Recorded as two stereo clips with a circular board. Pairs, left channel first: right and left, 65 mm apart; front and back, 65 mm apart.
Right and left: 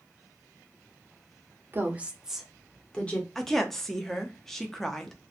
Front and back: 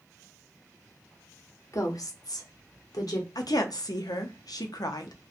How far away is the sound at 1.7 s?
About 0.7 m.